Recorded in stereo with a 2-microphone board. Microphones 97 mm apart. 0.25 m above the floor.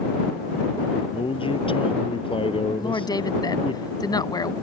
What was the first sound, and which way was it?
A man speaking, 65° left (ahead or behind).